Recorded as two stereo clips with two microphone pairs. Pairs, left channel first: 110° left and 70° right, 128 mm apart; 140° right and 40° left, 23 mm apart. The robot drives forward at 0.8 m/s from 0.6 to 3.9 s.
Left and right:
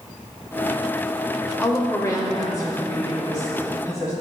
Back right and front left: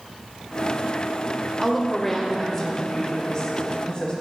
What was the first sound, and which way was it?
A woman speaking, 90° left.